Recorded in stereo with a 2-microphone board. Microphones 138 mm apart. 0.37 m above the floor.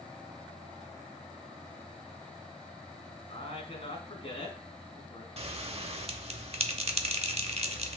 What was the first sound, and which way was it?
A man speaking, 50° left (ahead or behind).